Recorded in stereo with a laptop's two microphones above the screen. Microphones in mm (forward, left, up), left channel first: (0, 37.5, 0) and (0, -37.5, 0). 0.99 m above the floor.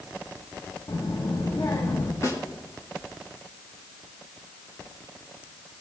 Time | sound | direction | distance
0.9 | a child speaking | 60° left (ahead or behind) | 1.1 m
2.2 | a snare drum | 45° left (ahead or behind) | 1.5 m